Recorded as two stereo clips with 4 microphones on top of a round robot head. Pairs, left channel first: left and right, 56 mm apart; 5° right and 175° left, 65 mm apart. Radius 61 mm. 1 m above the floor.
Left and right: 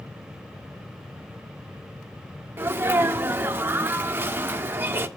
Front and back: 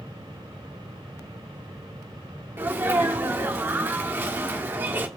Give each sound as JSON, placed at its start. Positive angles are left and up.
{"t": 2.6, "sound": "a sneeze", "azimuth_deg": -135, "distance_m": 1.3}